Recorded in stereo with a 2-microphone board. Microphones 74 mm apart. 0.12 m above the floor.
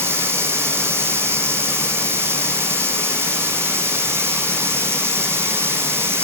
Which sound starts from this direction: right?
Running water, at 0.0 s.